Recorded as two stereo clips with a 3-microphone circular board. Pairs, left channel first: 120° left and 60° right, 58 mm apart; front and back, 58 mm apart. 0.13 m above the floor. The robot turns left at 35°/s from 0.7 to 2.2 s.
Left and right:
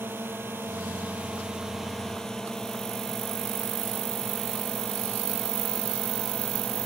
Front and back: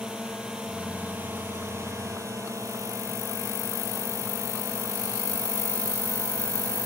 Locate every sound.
0.0 s a drone: 105° right; by 6.9 s 160° right